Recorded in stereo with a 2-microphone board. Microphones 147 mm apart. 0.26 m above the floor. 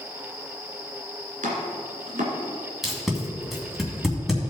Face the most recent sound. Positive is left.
turn(degrees=0)  # may be behind; listen again after turning